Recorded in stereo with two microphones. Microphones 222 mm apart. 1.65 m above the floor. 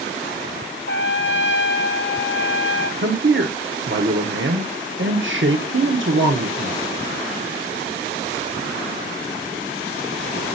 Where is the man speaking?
60° right (ahead or behind), 1.0 m.